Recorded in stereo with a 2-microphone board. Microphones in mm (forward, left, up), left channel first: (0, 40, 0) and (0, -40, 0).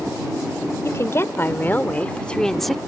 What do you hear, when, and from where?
0.8 s a woman speaking: 40° left (ahead or behind); by 2.8 s centre (ahead or behind)